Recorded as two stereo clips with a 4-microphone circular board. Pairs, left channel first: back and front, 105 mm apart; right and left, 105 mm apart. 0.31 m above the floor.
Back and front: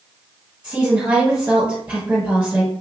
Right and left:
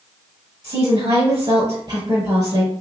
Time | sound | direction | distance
0.6 | a woman speaking | 70° left | 1.2 m